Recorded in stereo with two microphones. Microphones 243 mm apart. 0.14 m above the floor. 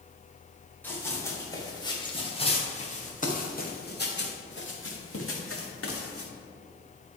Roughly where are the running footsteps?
Centre.